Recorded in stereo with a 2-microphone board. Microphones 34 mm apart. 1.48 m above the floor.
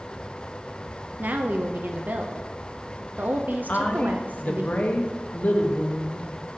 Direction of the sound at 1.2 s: 60° right (ahead or behind).